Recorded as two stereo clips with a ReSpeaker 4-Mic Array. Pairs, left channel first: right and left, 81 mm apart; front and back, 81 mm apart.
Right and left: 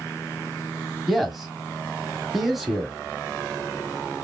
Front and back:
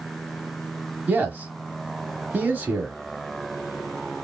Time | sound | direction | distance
1.1 | a man speaking | 175° left | 1.0 m